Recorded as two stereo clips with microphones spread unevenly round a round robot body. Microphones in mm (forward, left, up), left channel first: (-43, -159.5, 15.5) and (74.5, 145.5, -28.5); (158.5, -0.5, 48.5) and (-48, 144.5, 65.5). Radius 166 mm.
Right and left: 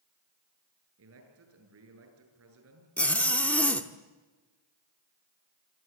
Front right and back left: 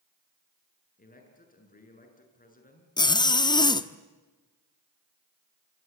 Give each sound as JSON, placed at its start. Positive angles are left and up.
{"t": 1.0, "sound": "a man speaking", "azimuth_deg": 20, "distance_m": 7.5}
{"t": 3.0, "sound": "a zipper", "azimuth_deg": -10, "distance_m": 1.2}